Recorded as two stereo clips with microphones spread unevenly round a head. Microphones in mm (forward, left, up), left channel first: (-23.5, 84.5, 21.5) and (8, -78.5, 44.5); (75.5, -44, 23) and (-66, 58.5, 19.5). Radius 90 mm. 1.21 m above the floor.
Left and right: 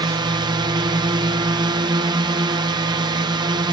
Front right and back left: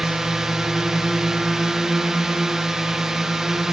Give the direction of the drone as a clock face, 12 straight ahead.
4 o'clock.